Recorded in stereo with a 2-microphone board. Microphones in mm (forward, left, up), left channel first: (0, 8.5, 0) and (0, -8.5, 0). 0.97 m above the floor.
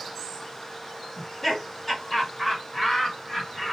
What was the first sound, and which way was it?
Laughter, 20° left (ahead or behind).